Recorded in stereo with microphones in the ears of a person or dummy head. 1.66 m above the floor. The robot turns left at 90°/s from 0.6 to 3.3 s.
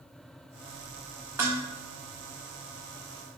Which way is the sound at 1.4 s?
10° right (ahead or behind).